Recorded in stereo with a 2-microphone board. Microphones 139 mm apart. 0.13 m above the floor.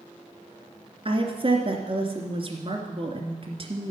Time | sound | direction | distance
1.1 | a woman speaking | 40° right (ahead or behind) | 2 m